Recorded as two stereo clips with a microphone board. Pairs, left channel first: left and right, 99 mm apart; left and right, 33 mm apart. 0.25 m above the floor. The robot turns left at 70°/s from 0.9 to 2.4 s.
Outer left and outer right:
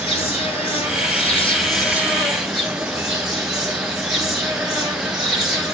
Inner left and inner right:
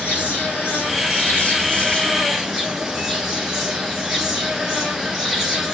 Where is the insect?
100° left, 2 m; by 5.8 s 5° right, 2 m.